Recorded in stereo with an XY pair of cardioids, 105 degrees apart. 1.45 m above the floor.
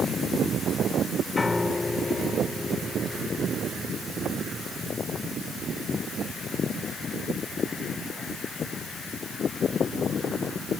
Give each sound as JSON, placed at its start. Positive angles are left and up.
{"t": 1.4, "sound": "a piano", "azimuth_deg": 25}